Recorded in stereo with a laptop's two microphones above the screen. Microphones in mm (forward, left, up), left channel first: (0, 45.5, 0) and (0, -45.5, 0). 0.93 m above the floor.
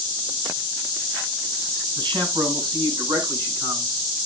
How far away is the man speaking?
About 6.5 m.